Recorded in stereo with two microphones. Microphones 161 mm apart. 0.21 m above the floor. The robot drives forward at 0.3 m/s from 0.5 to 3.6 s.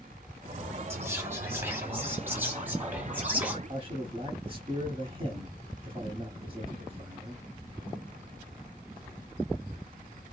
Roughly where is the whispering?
Centre.